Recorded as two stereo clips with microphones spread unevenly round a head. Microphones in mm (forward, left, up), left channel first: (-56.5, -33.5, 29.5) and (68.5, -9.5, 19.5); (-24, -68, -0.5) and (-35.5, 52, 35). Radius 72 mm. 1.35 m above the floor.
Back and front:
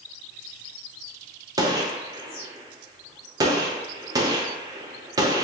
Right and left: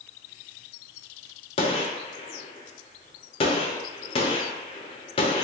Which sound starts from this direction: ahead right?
A gunshot, at 1.6 s.